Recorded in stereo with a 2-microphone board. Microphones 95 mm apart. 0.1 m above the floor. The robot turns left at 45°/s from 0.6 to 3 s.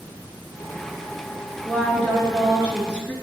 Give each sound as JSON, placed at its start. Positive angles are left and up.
{"t": 1.6, "sound": "a woman speaking", "side_deg": 20, "distance_m": 1.5}